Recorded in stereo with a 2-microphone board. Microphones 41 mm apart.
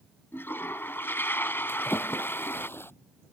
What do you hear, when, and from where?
0.3 s a toilet flushing: 80° left
1.7 s a splash: 90° left